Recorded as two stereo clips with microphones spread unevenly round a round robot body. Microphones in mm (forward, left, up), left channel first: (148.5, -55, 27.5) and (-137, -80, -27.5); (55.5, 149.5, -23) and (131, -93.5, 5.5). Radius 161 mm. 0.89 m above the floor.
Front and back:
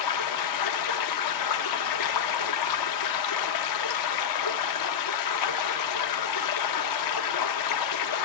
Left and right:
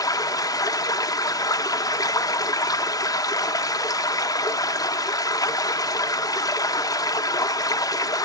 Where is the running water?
30° left, 0.8 m.